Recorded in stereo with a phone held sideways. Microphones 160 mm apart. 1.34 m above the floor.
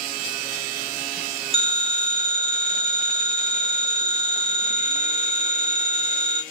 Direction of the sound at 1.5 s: 35° right (ahead or behind).